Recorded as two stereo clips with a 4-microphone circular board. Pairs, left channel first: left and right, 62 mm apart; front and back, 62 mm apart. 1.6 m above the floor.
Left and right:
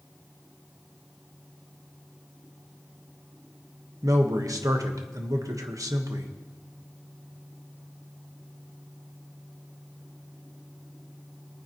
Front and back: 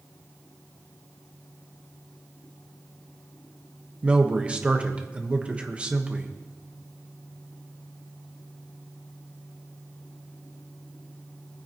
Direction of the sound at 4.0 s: 110° right.